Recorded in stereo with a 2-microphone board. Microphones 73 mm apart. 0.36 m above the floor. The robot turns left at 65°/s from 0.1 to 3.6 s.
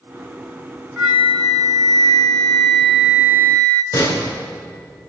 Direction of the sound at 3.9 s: 45° left (ahead or behind).